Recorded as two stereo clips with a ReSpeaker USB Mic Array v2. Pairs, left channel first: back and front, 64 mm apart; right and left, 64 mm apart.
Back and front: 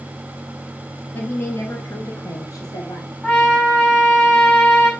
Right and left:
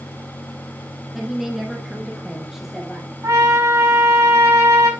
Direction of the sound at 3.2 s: 110° left.